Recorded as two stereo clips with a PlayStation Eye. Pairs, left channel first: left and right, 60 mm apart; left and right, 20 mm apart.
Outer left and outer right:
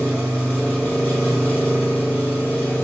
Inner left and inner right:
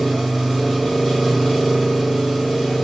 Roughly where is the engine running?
Left.